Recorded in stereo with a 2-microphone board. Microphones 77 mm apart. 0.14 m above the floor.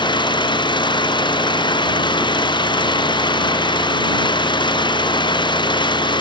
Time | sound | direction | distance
0.0 | an engine running | 80° left | ?